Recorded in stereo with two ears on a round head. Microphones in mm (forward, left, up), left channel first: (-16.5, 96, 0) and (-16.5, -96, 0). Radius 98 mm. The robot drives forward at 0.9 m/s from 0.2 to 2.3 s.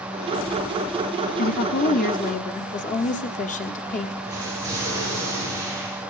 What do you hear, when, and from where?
1.4 s a woman speaking: 40° left (ahead or behind), 1.0 m; by 4.2 s 35° left (ahead or behind), 1.2 m
4.2 s an explosion: 15° right (ahead or behind), 9 m